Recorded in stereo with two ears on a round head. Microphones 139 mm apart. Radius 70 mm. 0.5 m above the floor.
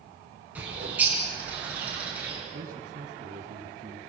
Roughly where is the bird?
Centre.